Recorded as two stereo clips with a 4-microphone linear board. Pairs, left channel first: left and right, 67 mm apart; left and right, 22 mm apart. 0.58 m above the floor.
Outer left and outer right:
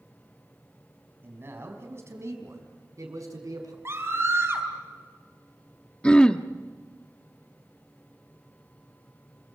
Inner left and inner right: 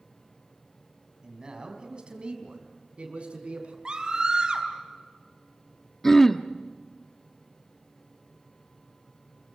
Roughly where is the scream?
Right.